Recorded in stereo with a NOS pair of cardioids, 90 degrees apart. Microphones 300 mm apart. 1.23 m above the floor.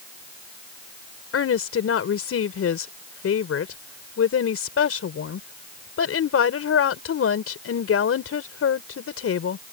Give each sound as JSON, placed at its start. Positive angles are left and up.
{"t": 1.3, "sound": "a woman speaking", "azimuth_deg": 50}